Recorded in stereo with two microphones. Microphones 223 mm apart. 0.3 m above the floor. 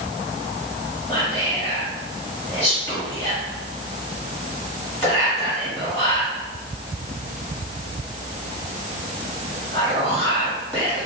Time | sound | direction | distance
1.1 | whispering | 25° left (ahead or behind) | 1.9 m